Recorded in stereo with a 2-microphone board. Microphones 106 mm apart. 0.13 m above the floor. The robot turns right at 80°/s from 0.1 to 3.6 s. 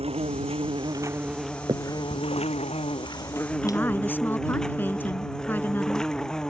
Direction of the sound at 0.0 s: 105° right.